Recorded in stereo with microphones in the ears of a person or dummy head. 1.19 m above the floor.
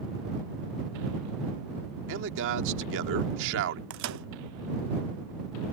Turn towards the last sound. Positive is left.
turn(degrees=-65)  # may be behind; listen again after turning